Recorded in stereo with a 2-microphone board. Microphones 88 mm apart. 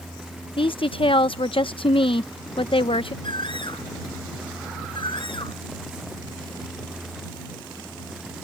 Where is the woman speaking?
80° left.